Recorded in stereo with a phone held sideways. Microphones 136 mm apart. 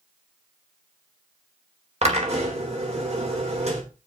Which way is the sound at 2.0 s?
50° right (ahead or behind).